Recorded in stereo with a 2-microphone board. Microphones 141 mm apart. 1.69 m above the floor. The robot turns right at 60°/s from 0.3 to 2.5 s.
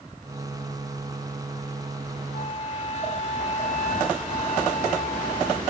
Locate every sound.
2.3 s a flute: 60° left (ahead or behind), 1.2 m; by 5.6 s 50° left (ahead or behind), 1.2 m